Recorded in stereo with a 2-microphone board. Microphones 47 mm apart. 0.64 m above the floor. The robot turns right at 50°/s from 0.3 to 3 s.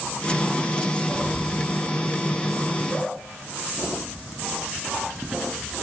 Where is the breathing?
5° right (ahead or behind), 4.5 m; by 1.7 s 35° right (ahead or behind), 4.5 m.